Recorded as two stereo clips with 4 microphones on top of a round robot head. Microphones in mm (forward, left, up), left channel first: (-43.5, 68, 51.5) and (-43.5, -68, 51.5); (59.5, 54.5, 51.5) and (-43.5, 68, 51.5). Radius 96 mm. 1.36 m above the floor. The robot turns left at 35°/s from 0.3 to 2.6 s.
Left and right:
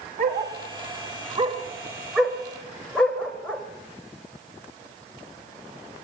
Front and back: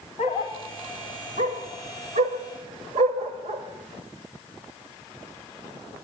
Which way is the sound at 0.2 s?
110° right.